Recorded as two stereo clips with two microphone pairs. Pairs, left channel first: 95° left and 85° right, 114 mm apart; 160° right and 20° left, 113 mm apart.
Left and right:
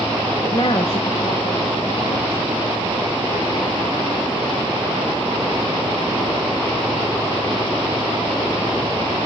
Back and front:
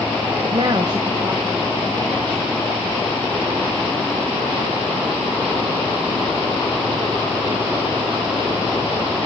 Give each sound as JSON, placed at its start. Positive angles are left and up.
{"t": 0.4, "sound": "a woman speaking", "azimuth_deg": 50, "distance_m": 0.8}